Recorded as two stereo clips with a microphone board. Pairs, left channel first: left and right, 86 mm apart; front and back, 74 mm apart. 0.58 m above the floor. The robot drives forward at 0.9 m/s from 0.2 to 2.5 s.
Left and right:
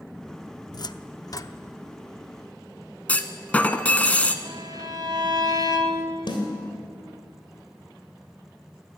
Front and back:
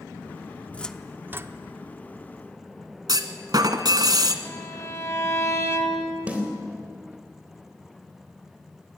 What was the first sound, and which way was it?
A cupboard door, 65° left.